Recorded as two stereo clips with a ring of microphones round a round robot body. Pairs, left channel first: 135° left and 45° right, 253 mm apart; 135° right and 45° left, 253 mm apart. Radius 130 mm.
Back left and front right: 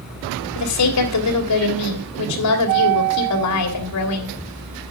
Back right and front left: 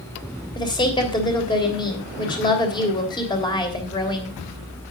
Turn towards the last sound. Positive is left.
turn(degrees=150)